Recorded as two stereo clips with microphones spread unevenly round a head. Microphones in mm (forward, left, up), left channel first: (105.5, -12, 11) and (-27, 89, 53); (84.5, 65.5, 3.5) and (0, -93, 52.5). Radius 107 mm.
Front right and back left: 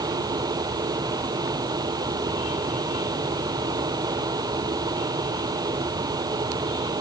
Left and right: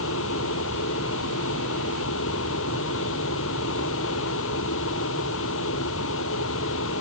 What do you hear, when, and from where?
0.0 s a fan: 75° left